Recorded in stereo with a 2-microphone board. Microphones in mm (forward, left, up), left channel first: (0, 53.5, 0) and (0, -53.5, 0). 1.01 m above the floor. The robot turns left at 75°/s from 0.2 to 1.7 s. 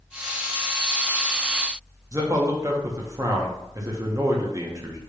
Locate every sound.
2.1 s a man speaking: 35° right (ahead or behind), 0.6 m